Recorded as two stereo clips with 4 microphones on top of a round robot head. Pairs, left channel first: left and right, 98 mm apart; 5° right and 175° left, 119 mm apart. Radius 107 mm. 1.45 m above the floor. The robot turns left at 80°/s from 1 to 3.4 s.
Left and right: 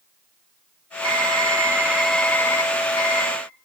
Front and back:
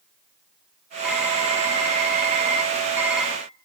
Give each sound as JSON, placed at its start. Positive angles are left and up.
{"t": 1.0, "sound": "typing on a keyboard", "azimuth_deg": -95, "distance_m": 2.0}